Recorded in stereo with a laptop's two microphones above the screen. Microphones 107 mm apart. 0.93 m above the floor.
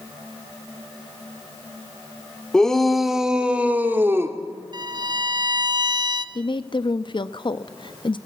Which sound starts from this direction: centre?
A shout, at 2.5 s.